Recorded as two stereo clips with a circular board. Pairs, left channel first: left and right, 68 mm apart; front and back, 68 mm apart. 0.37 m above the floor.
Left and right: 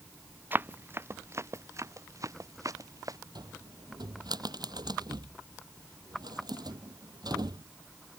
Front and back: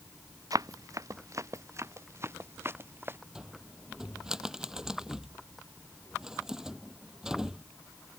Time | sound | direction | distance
0.5 | running footsteps | 150° right | ?
3.4 | a cupboard door | 100° right | ?